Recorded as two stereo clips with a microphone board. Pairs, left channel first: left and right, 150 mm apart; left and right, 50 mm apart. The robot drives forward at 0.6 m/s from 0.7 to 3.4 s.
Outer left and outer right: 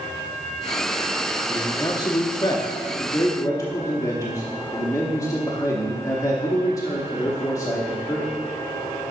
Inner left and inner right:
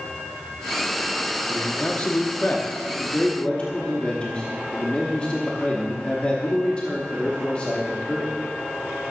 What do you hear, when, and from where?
1.5 s a man speaking: 25° left (ahead or behind), 0.9 m; by 8.3 s 20° left (ahead or behind), 1.0 m